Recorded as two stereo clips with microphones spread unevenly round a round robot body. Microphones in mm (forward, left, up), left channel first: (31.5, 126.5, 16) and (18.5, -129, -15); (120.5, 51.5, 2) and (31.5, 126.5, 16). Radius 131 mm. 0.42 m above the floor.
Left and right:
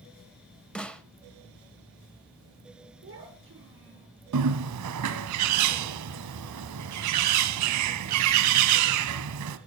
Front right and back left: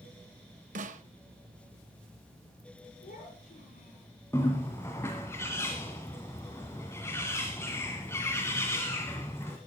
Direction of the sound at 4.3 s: 120° right.